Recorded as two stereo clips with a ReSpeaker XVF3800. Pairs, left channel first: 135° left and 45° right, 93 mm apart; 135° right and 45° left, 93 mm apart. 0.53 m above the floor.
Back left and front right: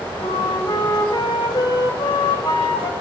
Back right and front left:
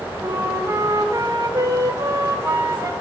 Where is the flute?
100° left, 0.6 m.